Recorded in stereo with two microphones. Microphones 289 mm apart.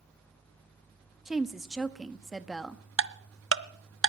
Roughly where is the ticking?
Right.